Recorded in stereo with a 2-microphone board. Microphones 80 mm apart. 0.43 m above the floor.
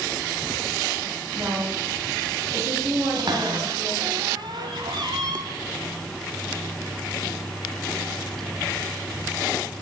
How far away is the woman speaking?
About 3 m.